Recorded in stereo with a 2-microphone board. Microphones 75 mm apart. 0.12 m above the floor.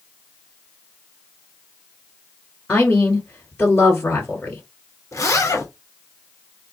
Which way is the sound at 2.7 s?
20° left (ahead or behind).